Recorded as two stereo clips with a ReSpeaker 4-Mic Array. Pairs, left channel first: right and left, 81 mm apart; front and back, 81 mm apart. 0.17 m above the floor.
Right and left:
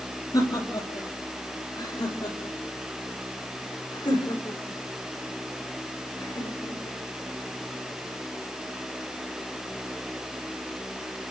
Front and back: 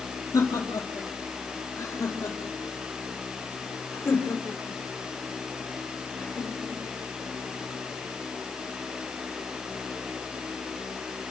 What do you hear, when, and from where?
0.3 s laughter: 55° right, 6 m; by 7.0 s 70° right, 10 m